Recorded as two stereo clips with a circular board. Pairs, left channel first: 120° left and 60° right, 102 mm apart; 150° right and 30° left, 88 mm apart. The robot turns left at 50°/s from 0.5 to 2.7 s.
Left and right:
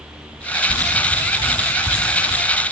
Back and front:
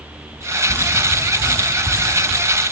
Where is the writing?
95° right, 1.5 m; by 2.4 s straight behind, 1.5 m.